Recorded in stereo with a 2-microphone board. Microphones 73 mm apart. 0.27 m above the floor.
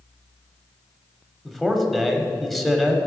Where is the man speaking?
Centre (ahead or behind), 1.0 m.